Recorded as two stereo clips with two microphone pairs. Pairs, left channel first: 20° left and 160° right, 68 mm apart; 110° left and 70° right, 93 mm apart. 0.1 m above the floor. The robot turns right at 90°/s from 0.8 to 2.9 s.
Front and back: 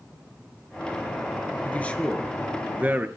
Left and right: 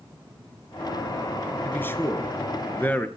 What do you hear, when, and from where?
1.6 s a man speaking: 50° left, 1.9 m; by 3.1 s 160° left, 1.9 m